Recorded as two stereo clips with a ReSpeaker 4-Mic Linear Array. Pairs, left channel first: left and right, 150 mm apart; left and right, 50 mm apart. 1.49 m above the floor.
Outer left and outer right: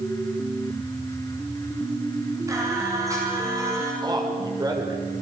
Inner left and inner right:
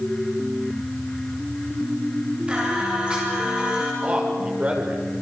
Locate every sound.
2.5 s singing: 20° right (ahead or behind), 9 m
4.0 s a man speaking: 25° right (ahead or behind), 7 m